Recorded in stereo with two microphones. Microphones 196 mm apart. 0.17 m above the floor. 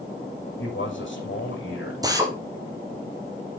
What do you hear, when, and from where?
0.6 s a man speaking: 70° left (ahead or behind), 8 m
2.0 s a drill: 20° right (ahead or behind), 3.5 m